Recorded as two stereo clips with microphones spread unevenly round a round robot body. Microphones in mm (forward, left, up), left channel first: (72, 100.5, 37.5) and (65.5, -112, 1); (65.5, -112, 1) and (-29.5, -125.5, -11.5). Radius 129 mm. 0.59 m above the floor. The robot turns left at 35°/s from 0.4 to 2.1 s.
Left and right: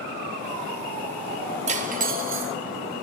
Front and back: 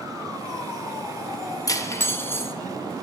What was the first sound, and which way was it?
Cutlery clinking, 45° right.